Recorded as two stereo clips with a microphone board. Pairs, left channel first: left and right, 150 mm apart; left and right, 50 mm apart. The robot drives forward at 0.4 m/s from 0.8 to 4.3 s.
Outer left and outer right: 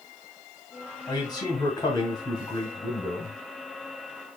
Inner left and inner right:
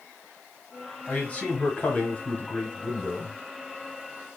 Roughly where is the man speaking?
Left.